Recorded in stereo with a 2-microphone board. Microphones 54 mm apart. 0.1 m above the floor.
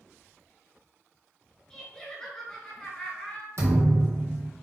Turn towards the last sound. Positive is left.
turn(degrees=-60)  # may be behind; listen again after turning